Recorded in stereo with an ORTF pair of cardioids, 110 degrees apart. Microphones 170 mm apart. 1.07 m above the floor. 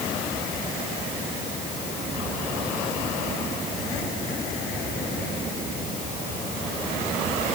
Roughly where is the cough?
No cough in this recording.